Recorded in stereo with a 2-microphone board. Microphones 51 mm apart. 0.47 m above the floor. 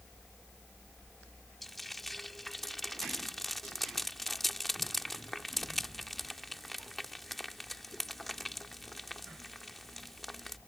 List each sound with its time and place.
1.6 s frying: 5° left (ahead or behind)